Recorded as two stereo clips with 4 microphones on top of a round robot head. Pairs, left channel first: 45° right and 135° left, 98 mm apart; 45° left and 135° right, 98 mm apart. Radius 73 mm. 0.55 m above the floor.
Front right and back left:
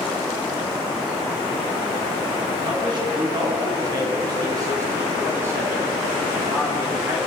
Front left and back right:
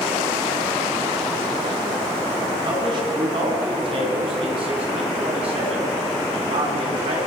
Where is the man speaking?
Straight behind, 7 m; by 7.2 s 150° right, 6.5 m.